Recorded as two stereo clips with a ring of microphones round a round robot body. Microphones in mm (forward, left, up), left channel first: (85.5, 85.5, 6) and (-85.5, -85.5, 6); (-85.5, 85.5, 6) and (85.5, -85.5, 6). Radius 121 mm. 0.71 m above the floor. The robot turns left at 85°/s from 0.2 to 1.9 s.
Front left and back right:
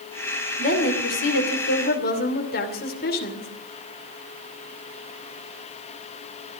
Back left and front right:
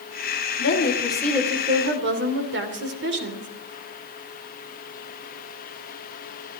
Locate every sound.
0.6 s a woman speaking: 105° left, 2.5 m; by 3.5 s 5° right, 2.5 m